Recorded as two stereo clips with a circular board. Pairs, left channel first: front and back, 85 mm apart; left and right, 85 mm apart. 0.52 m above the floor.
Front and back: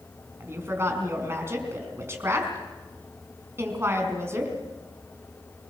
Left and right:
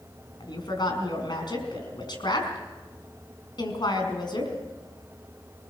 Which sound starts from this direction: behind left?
A woman speaking, at 0.4 s.